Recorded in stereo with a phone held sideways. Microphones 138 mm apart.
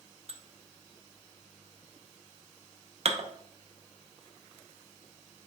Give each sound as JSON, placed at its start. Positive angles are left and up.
{"t": 0.3, "sound": "dishes clattering", "side_deg": -55, "distance_m": 0.5}